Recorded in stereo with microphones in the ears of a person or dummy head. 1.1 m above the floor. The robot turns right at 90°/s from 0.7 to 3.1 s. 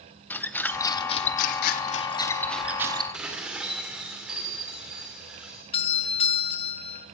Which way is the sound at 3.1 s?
5° right (ahead or behind).